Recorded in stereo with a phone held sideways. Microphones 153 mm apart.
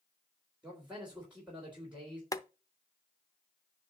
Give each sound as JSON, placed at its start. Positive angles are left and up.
{"t": 0.6, "sound": "a man speaking", "side_deg": -10, "distance_m": 3.5}
{"t": 2.3, "sound": "boiling", "side_deg": 25, "distance_m": 0.7}